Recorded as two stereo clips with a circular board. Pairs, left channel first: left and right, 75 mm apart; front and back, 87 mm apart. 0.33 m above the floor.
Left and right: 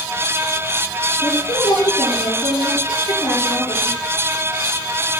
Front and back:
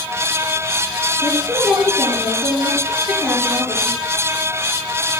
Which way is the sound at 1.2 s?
80° left.